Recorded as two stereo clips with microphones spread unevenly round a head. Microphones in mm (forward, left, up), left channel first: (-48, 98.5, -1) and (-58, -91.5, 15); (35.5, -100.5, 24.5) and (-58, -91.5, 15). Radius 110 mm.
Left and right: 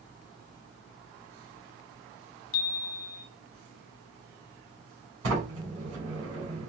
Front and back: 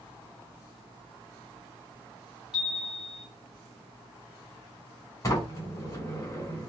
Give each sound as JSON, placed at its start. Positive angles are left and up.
{"t": 2.5, "sound": "a chime", "azimuth_deg": 90, "distance_m": 0.7}
{"t": 5.2, "sound": "a sliding door", "azimuth_deg": -55, "distance_m": 2.5}